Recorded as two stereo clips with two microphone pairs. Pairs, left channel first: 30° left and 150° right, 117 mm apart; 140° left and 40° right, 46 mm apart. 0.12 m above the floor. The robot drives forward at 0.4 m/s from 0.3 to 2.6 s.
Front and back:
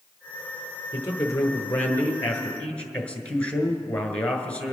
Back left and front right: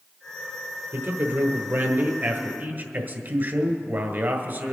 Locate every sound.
0.9 s a man speaking: 30° right, 2 m; by 4.8 s 45° right, 1.6 m